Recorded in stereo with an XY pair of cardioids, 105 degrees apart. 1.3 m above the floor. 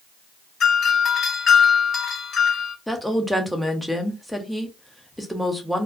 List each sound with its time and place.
0.6 s a doorbell: 60° left, 1.4 m
2.9 s a woman speaking: straight ahead, 0.8 m